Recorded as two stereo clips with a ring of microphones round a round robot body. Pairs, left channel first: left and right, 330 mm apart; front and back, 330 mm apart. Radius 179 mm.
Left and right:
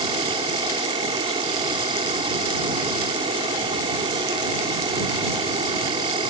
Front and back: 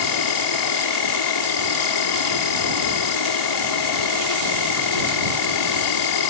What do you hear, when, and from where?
0.0 s an insect: 15° right